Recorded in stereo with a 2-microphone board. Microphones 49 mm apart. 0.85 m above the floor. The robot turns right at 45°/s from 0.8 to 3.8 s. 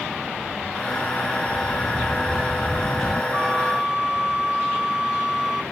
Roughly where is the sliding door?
Ahead right.